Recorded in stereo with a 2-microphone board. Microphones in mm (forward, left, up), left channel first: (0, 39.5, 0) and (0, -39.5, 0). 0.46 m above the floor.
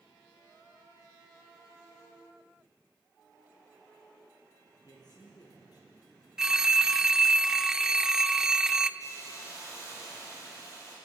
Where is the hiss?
40° left (ahead or behind), 7.5 m.